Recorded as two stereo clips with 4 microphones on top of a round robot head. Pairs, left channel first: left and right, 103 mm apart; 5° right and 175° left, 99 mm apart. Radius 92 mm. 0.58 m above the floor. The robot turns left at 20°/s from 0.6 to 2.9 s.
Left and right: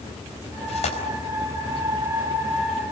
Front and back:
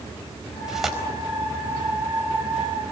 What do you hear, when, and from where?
0.7 s tearing paper: 95° left, 4.5 m; by 1.0 s 85° left, 4.5 m